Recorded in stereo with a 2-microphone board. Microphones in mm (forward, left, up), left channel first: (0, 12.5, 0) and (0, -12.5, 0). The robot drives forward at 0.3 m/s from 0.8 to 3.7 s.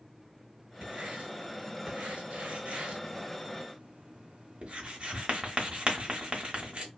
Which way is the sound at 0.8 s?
50° right (ahead or behind).